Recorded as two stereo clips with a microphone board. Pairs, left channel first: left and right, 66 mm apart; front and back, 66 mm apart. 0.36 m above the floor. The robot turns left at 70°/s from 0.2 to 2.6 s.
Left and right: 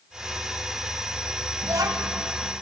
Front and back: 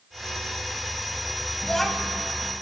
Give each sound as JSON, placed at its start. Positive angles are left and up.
{"t": 1.6, "sound": "a child speaking", "azimuth_deg": -70, "distance_m": 1.1}